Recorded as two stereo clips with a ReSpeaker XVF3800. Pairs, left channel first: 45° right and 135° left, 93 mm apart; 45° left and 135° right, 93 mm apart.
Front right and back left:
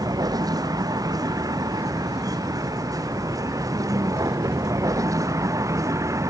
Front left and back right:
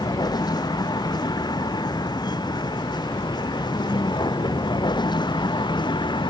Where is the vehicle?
90° left; by 6.3 s 80° left.